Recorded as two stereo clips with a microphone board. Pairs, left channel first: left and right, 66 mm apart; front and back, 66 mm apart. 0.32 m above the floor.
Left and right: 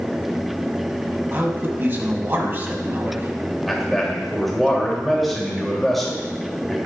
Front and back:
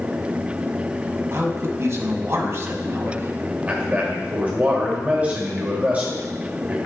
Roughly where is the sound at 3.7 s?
Behind.